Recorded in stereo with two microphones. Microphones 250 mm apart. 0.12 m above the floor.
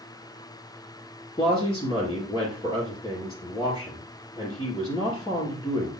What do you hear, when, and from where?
1.4 s a woman speaking: 20° left (ahead or behind), 2.5 m